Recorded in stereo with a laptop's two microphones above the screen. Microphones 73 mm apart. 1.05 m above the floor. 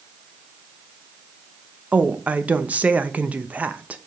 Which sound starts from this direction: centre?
A woman speaking, at 1.9 s.